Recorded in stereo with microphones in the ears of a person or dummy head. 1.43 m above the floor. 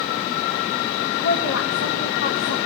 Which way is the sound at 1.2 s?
55° left (ahead or behind).